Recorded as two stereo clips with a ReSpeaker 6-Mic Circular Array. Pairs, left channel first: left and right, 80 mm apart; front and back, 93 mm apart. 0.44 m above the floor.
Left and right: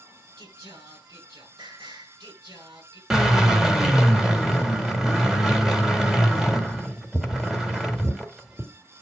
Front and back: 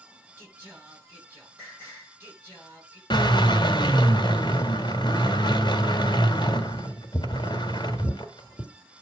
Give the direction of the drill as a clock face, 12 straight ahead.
12 o'clock.